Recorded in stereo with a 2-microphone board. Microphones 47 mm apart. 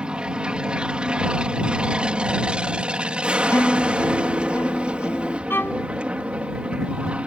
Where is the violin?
55° left (ahead or behind).